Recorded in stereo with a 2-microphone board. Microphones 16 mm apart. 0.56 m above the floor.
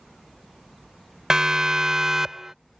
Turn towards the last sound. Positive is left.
turn(degrees=-30)  # may be behind; listen again after turning